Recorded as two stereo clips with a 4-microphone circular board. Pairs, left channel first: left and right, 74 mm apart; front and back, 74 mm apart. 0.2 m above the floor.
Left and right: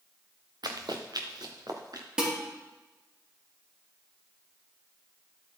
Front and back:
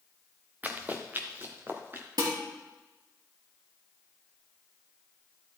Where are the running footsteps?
115° right, 1.2 m; by 2.1 s 120° right, 2 m.